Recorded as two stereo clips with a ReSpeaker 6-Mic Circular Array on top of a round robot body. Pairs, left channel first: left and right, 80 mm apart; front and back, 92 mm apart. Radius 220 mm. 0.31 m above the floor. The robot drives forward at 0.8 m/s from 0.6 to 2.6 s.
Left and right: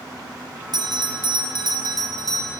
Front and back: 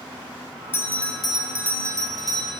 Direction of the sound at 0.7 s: 65° right.